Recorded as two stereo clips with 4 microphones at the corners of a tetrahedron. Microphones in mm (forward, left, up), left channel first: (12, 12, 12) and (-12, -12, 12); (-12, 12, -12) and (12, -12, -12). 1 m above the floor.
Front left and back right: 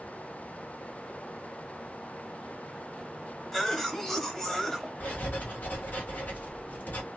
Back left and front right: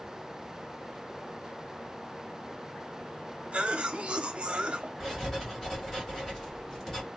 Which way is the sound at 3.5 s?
25° right.